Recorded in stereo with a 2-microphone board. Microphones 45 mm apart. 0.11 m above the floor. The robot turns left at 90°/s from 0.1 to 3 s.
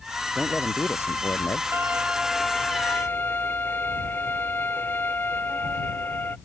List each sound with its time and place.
0.3 s a man speaking: straight behind; by 1.6 s 65° left
1.7 s a violin: 115° right; by 6.4 s 130° left